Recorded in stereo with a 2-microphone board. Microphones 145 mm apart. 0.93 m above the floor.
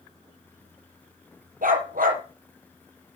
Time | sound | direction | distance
1.6 | a dog barking | 80° right | 5.5 m